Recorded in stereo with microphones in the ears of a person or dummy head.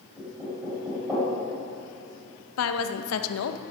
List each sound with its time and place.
0.2 s knocking: 15° right (ahead or behind), 4.5 m
2.6 s a woman speaking: 85° left, 0.8 m